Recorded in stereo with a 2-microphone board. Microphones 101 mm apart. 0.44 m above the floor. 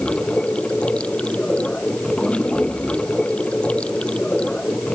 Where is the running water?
10° left (ahead or behind).